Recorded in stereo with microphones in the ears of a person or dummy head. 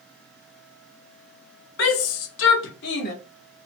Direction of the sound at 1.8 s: 65° left (ahead or behind).